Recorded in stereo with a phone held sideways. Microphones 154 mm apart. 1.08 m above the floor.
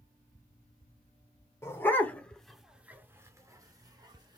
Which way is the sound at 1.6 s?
15° left (ahead or behind).